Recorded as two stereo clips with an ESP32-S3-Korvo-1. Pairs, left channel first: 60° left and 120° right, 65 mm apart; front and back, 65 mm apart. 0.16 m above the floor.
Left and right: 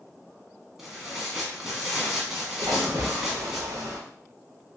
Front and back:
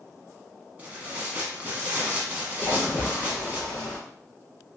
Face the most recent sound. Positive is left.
turn(degrees=-85)